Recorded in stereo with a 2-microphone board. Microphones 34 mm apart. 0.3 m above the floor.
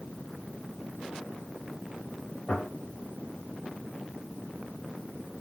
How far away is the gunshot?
About 1.4 m.